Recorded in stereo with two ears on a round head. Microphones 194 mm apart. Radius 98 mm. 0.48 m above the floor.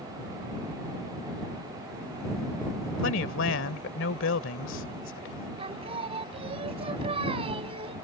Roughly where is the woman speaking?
Left.